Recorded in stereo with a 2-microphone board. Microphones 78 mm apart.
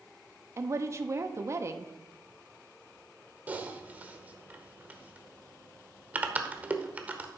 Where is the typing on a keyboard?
20° right (ahead or behind), 0.9 m.